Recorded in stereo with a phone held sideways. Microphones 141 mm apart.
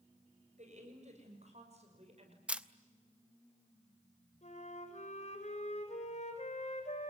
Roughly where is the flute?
Left.